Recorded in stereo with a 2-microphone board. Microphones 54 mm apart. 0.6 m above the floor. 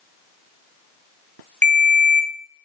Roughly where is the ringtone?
Left.